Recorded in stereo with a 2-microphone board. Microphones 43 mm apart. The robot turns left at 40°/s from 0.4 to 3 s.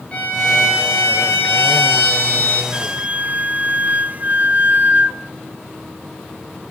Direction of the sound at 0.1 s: 150° left.